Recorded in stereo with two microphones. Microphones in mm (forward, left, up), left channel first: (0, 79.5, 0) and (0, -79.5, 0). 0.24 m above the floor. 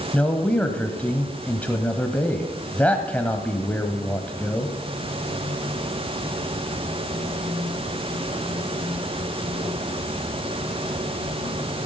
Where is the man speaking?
10° left (ahead or behind), 1.1 m.